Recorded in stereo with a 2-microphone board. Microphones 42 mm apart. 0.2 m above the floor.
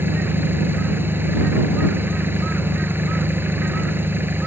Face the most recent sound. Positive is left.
turn(degrees=-60)  # may be behind; listen again after turning